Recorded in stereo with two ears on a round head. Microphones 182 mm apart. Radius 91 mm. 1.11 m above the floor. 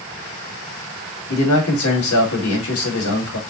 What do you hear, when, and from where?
1.3 s a man speaking: 80° left, 1.9 m